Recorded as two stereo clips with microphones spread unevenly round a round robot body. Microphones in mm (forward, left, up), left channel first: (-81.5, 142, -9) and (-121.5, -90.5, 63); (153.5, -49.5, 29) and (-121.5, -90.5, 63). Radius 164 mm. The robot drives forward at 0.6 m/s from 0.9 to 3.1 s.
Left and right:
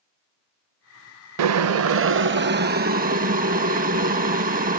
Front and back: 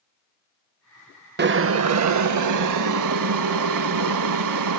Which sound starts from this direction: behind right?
Boiling, at 1.4 s.